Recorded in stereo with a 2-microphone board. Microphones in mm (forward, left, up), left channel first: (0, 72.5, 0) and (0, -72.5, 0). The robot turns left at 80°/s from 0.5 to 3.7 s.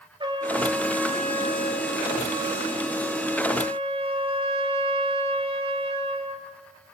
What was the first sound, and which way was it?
A trumpet, 145° right.